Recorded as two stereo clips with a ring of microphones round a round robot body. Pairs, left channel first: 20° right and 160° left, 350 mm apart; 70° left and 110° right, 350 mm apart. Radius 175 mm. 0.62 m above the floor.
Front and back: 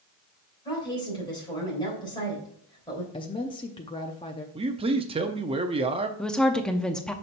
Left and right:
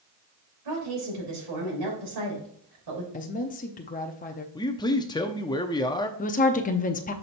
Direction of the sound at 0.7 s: 100° right.